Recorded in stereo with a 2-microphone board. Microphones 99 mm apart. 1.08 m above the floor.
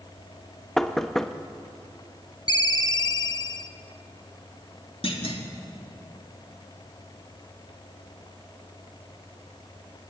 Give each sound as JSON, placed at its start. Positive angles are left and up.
{"t": 0.8, "sound": "knocking", "side_deg": 5, "distance_m": 0.9}
{"t": 2.5, "sound": "a ringtone", "side_deg": 45, "distance_m": 0.9}
{"t": 5.0, "sound": "a clunk", "side_deg": 70, "distance_m": 2.5}